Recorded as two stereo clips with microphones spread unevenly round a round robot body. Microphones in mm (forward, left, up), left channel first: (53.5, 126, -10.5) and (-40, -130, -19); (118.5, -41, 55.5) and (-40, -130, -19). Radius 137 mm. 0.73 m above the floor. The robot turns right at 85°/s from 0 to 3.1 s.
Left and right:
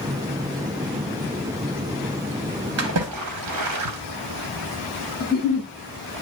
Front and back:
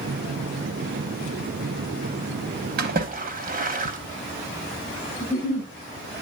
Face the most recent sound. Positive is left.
turn(degrees=165)